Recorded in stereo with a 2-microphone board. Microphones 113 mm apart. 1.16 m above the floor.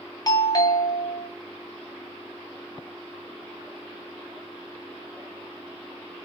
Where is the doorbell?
30° left (ahead or behind), 0.6 m.